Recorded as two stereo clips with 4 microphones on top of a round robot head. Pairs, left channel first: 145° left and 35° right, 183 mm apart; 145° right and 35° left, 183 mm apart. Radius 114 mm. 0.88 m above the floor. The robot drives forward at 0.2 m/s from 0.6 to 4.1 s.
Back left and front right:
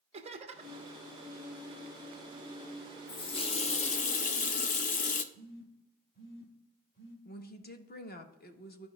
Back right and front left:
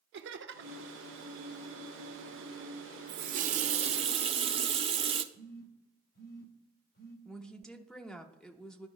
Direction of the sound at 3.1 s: 80° left.